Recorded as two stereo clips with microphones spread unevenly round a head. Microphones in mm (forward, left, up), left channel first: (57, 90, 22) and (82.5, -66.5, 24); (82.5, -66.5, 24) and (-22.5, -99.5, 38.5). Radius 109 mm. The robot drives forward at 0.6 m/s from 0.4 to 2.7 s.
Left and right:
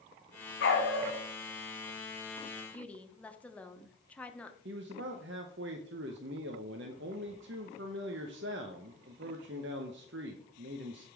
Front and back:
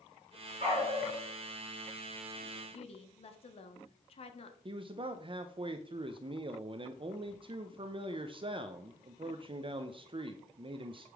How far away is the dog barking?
About 2 m.